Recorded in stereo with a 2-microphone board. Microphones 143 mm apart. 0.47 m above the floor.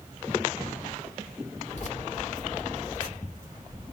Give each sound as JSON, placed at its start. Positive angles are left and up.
{"t": 1.7, "sound": "keys jangling", "side_deg": 60, "distance_m": 1.5}